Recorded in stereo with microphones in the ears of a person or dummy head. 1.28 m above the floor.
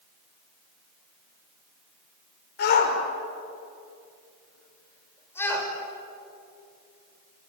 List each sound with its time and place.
2.6 s a shout: 50° left (ahead or behind), 5.5 m; by 5.7 s 10° left (ahead or behind), 6 m